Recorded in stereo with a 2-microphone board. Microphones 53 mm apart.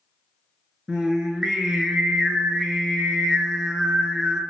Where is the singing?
15° right (ahead or behind), 0.5 m.